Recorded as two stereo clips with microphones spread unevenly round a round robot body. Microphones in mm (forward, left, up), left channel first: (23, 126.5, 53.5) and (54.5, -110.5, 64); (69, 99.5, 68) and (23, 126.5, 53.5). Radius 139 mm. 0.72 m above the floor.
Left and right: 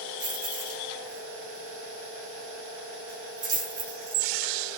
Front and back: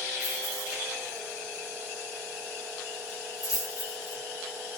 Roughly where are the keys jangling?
Ahead right.